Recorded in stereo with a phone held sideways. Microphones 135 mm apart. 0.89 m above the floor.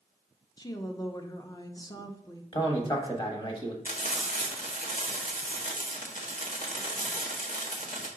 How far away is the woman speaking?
About 0.8 m.